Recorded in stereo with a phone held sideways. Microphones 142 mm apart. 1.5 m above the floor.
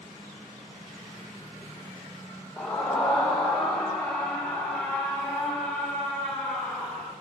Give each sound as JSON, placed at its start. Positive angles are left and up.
{"t": 2.6, "sound": "a scream", "side_deg": 5, "distance_m": 2.0}